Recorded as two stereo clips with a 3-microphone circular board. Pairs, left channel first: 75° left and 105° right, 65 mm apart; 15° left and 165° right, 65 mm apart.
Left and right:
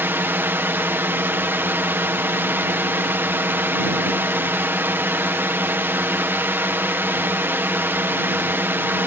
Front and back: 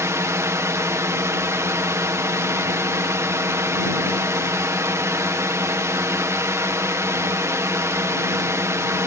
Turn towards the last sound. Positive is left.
turn(degrees=-150)